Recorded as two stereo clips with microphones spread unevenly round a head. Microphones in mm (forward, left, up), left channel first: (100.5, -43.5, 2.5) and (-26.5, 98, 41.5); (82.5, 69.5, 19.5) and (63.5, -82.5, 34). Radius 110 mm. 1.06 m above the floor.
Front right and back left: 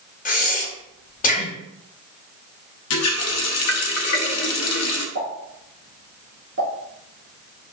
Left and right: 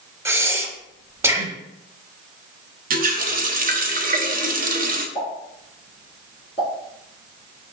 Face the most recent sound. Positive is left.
turn(degrees=145)